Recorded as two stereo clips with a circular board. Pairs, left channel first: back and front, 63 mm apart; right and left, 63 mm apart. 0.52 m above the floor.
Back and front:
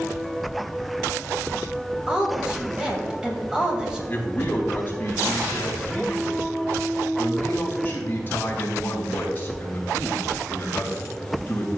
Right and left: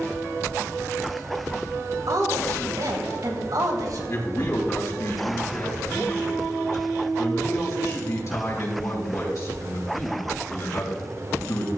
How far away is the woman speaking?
About 2.5 m.